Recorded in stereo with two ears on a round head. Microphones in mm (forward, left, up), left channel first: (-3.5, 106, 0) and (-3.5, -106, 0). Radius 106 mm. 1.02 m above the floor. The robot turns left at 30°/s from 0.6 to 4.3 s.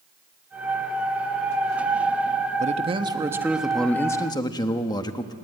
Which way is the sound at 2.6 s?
145° right.